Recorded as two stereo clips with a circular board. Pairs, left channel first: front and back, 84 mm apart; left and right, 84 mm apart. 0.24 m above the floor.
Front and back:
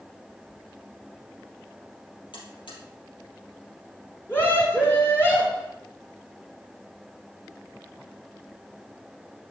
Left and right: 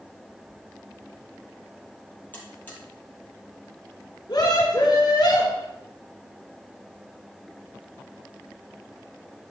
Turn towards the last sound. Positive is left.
turn(degrees=60)